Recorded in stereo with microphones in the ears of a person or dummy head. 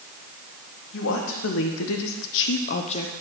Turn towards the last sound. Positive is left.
turn(degrees=25)  # may be behind; listen again after turning